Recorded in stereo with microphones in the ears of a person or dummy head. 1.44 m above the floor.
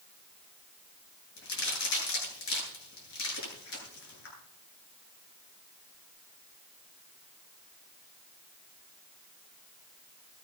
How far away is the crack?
About 9 m.